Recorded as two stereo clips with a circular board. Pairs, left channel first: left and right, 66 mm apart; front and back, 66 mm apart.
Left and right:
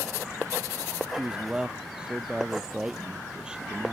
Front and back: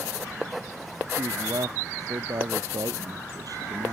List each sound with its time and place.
1.1 s a man speaking: 165° right